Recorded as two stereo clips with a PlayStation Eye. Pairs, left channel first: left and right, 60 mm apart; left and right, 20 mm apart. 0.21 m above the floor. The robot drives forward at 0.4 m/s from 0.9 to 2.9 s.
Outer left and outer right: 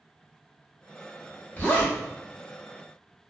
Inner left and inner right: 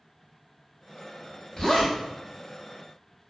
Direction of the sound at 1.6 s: 35° left (ahead or behind).